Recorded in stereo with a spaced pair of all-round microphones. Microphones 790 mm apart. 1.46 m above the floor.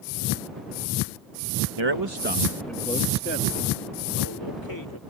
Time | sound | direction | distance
1.8 | a man speaking | 40° right (ahead or behind) | ?